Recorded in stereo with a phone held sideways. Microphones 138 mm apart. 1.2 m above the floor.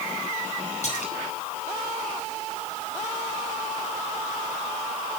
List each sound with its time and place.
0.8 s a splash: 55° left (ahead or behind), 6 m